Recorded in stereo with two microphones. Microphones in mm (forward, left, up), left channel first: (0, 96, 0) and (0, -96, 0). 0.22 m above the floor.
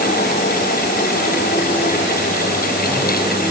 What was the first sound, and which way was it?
Only background noise.